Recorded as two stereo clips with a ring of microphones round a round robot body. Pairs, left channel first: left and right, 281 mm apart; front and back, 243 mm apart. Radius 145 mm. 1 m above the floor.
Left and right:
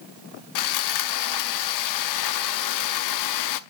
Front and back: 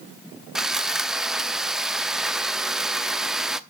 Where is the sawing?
90° left, 0.7 m.